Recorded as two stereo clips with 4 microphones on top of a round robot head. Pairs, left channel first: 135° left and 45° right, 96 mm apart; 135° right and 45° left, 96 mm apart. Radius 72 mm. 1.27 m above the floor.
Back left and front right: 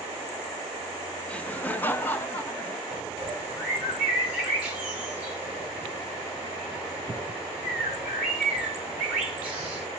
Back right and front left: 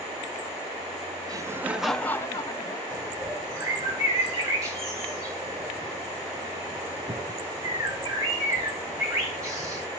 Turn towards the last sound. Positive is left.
turn(degrees=25)